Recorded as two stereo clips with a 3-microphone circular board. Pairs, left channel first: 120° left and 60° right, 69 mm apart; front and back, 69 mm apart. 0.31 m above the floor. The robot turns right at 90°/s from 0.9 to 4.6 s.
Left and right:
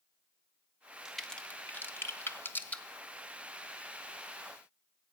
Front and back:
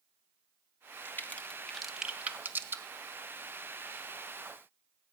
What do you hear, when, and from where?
1.1 s a crack: 20° left, 1.1 m; by 2.8 s straight behind, 1.1 m